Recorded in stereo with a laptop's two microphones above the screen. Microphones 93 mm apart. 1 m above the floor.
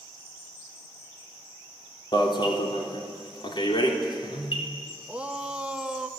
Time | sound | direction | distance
2.1 | an alarm | 55° left (ahead or behind) | 3.5 m
5.1 | a shout | 10° right (ahead or behind) | 0.8 m